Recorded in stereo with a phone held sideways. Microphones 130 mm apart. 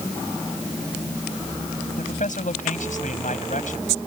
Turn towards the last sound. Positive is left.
turn(degrees=80)